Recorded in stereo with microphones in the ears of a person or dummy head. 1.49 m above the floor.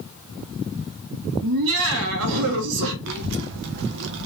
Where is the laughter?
75° right (ahead or behind), 1.1 m.